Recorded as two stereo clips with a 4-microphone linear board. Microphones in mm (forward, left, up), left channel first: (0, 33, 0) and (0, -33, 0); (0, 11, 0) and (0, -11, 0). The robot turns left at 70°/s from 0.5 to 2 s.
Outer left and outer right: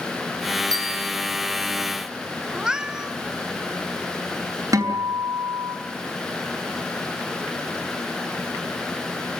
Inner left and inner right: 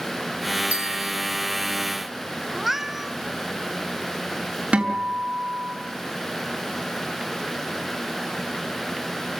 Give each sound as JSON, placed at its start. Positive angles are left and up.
{"t": 0.7, "sound": "a bell", "side_deg": -70, "distance_m": 9.0}
{"t": 2.5, "sound": "a cat meowing", "side_deg": -10, "distance_m": 0.9}
{"t": 4.7, "sound": "a guitar", "side_deg": -55, "distance_m": 4.0}